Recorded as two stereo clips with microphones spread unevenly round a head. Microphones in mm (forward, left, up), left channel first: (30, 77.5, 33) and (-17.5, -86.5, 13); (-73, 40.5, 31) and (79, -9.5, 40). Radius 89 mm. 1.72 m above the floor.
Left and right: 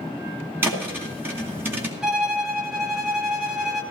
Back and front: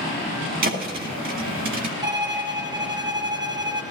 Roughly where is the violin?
Ahead.